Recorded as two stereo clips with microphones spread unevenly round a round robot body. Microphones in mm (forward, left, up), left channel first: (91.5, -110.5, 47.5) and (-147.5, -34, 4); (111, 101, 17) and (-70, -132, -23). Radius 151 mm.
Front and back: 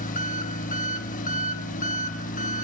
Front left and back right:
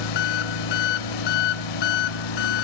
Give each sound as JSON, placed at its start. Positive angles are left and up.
{"t": 0.0, "sound": "an engine running", "azimuth_deg": 50, "distance_m": 1.3}